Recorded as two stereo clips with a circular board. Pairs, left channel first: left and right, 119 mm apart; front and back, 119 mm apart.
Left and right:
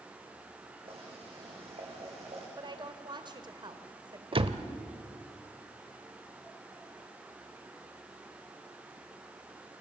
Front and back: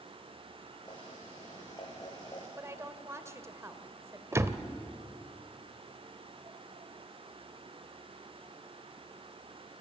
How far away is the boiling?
About 7 m.